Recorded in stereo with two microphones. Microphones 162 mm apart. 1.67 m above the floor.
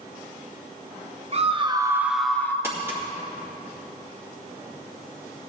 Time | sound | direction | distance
1.3 | a scream | 45° right (ahead or behind) | 1.1 m
2.6 | crumpling | 15° right (ahead or behind) | 2.5 m